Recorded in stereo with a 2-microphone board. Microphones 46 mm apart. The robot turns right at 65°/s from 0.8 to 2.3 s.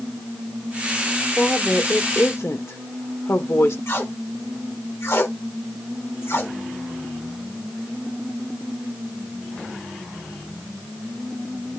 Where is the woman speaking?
20° left, 1.4 m; by 3.8 s 80° left, 1.4 m.